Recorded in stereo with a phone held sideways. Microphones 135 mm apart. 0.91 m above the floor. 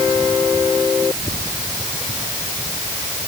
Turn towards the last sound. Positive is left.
No sound to turn to.